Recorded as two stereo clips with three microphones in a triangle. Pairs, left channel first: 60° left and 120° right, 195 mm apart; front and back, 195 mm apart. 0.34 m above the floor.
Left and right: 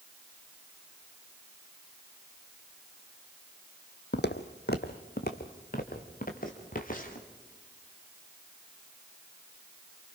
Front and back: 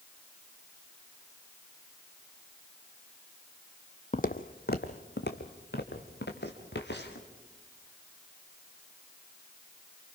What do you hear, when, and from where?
4.1 s footsteps: 45° left, 0.9 m; by 7.3 s 15° left, 3.5 m